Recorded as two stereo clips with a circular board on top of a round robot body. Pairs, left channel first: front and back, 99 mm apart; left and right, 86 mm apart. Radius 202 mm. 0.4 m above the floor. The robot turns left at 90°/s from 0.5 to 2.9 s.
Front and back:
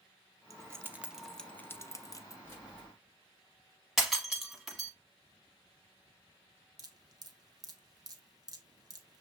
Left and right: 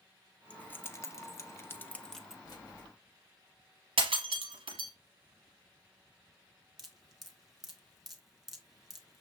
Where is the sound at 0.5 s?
155° left, 0.9 m; by 2.4 s 10° right, 0.9 m.